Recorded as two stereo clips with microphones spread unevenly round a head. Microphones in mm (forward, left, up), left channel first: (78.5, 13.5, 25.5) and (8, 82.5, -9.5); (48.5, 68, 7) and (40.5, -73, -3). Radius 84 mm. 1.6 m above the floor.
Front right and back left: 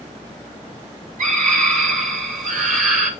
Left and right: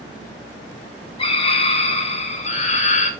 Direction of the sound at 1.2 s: 150° left.